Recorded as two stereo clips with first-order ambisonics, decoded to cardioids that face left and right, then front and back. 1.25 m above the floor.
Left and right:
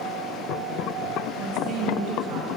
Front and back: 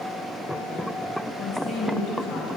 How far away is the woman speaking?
About 1.0 m.